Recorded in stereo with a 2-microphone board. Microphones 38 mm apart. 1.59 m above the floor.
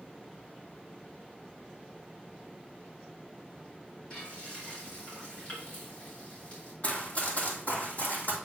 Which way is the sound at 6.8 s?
40° left (ahead or behind).